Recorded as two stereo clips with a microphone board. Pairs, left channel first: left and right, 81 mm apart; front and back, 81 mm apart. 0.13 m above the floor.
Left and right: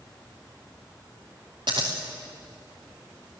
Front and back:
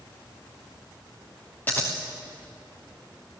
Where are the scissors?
70° right, 4 m.